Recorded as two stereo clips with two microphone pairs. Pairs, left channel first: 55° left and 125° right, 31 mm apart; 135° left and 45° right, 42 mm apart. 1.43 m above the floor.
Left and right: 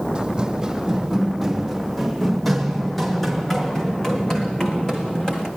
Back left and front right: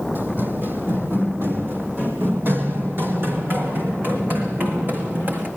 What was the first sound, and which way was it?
Running footsteps, 65° right.